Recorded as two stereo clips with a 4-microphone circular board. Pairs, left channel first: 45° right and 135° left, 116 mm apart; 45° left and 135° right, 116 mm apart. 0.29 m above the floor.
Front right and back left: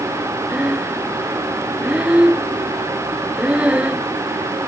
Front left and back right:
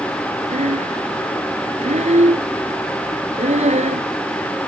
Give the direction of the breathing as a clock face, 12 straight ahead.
5 o'clock.